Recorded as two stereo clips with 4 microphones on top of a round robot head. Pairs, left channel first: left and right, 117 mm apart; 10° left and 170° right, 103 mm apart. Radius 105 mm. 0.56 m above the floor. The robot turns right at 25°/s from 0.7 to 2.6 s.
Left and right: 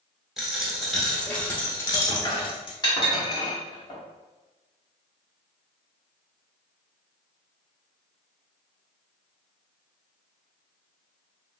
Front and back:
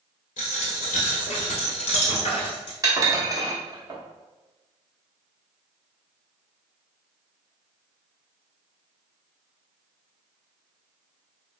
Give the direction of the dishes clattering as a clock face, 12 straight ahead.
7 o'clock.